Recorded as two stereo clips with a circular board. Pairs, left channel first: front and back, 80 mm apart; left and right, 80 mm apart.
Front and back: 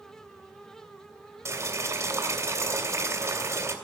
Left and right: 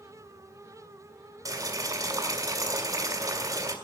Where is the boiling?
130° right, 2.5 m.